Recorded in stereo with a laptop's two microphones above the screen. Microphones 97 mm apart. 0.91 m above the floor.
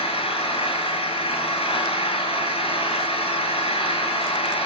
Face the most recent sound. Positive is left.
turn(degrees=85)